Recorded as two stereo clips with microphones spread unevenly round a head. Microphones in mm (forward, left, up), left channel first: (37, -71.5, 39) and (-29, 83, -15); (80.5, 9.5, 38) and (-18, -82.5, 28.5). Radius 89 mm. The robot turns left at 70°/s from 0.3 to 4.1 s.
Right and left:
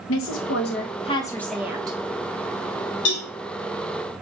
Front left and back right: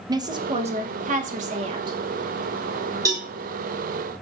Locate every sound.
0.1 s a woman speaking: 80° right, 0.8 m; by 2.0 s 160° left, 0.8 m
3.0 s a cowbell: 70° right, 1.8 m; by 3.3 s 85° right, 1.8 m